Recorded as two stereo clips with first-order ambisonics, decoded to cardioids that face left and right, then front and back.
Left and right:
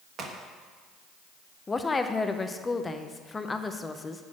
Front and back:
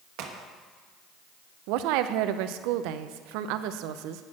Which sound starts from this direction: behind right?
A crack, at 0.2 s.